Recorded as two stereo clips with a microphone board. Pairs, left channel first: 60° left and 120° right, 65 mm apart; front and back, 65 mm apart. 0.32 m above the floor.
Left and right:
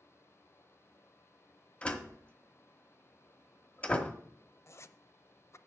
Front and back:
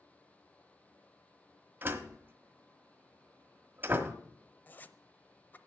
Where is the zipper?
50° left, 0.6 m.